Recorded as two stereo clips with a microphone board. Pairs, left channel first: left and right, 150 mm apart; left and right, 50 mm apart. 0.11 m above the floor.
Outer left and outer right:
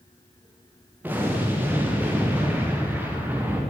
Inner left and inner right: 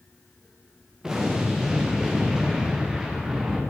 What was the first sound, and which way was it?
An explosion, 10° right (ahead or behind).